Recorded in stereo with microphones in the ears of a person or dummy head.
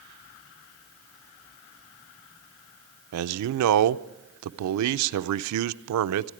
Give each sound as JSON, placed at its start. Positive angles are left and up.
{"t": 3.1, "sound": "a man speaking", "side_deg": -80, "distance_m": 0.6}